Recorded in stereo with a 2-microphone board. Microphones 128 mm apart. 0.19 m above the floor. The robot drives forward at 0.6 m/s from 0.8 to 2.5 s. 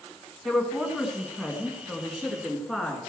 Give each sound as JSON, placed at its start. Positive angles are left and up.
{"t": 0.5, "sound": "a woman speaking", "side_deg": 0, "distance_m": 1.7}